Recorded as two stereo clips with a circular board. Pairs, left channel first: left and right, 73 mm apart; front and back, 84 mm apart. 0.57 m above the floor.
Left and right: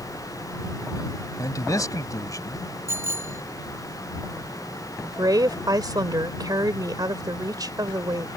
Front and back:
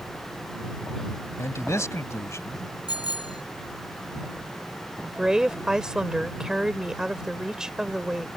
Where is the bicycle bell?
35° right.